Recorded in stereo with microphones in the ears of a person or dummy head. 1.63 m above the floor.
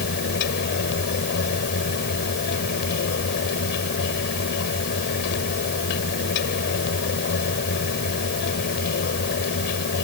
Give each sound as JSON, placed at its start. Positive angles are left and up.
{"t": 0.0, "sound": "a fan", "side_deg": 55}